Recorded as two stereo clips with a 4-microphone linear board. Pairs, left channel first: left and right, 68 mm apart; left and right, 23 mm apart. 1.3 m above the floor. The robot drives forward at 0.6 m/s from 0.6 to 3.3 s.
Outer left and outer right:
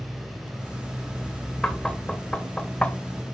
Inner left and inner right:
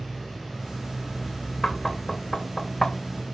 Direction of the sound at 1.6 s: 10° left (ahead or behind).